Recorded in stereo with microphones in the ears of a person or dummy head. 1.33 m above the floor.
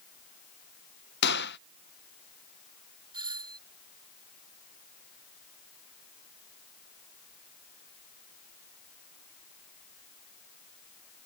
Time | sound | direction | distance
1.2 | a gunshot | 60° left (ahead or behind) | ?
3.1 | a doorbell | 25° right (ahead or behind) | ?